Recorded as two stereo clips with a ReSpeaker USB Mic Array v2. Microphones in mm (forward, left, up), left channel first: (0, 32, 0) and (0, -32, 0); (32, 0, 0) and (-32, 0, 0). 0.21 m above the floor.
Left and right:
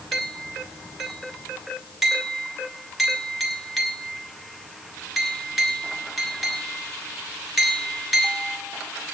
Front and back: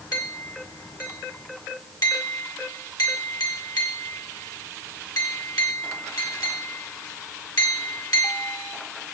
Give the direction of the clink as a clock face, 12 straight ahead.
12 o'clock.